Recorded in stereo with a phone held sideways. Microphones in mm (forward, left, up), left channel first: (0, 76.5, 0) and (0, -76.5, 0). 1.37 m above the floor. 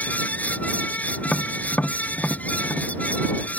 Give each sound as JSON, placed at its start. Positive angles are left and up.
{"t": 0.0, "sound": "a fan", "side_deg": 10}
{"t": 1.2, "sound": "tapping", "side_deg": 10}